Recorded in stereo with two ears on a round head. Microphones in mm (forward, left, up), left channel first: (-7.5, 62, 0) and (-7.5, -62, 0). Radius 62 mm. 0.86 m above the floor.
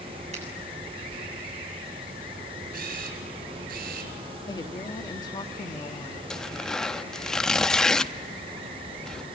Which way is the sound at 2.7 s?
70° right (ahead or behind).